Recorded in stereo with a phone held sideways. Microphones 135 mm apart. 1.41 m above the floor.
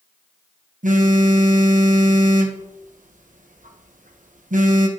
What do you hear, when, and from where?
0.8 s a phone buzzing: 80° right, 0.8 m